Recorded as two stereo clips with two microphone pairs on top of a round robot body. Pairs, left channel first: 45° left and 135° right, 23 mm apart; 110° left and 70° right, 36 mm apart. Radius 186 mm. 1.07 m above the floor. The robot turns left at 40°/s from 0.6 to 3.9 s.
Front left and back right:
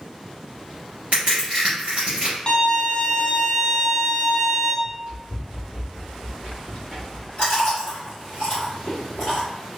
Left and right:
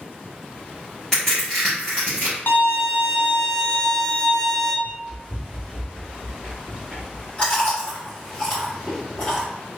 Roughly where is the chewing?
Ahead left.